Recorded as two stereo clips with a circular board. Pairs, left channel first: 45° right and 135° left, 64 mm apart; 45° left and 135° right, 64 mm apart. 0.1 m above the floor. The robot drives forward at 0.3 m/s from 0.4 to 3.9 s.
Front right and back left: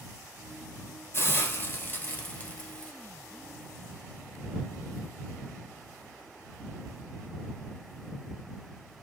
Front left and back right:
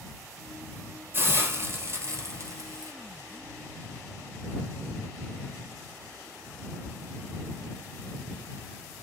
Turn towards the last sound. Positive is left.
turn(degrees=-130)